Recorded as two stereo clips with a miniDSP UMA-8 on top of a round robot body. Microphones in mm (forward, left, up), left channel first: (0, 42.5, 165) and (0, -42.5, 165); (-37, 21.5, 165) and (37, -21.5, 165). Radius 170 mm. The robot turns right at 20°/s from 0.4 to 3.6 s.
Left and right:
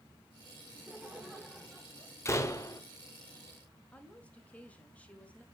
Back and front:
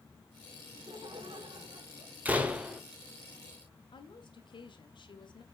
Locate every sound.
0.7 s laughter: 20° right, 3 m; by 2.1 s 10° left, 3 m
2.2 s a door slam: 35° left, 1.6 m; by 2.8 s 50° left, 1.6 m
3.9 s a woman speaking: 165° left, 2 m